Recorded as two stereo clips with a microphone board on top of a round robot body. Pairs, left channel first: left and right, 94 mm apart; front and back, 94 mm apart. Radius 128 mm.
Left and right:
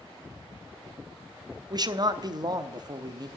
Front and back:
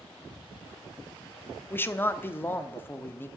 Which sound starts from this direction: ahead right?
A man speaking, at 1.7 s.